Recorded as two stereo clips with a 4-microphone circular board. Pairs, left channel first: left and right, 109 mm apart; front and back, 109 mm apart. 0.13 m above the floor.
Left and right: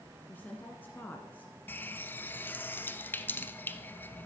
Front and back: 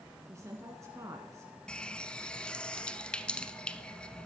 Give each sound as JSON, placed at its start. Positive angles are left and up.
{"t": 0.3, "sound": "a woman speaking", "azimuth_deg": 150, "distance_m": 1.6}
{"t": 1.7, "sound": "a running tap", "azimuth_deg": 65, "distance_m": 0.8}